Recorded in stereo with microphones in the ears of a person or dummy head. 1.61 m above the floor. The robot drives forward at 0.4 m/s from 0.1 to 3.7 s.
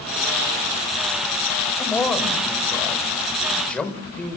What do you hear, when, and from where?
1.8 s a man speaking: 5° left (ahead or behind), 6 m; by 4.4 s 10° left (ahead or behind), 5.5 m